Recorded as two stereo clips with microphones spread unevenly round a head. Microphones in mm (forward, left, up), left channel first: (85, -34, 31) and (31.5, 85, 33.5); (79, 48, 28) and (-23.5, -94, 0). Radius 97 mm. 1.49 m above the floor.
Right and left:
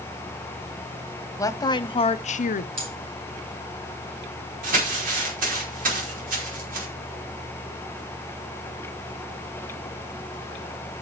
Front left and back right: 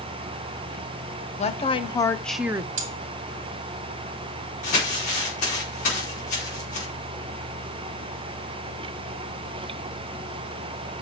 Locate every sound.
1.4 s a woman speaking: straight ahead, 1.2 m; by 2.7 s 65° right, 0.7 m
2.8 s cutlery clinking: 175° left, 2 m
4.6 s crumpling: 110° left, 5 m